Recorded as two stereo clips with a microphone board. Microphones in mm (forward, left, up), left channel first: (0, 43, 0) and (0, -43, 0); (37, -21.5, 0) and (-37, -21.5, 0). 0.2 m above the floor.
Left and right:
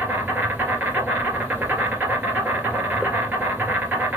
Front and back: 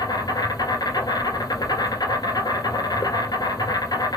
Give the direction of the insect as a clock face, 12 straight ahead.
1 o'clock.